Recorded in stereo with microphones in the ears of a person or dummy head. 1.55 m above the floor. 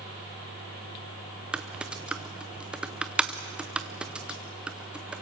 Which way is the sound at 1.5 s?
10° right (ahead or behind).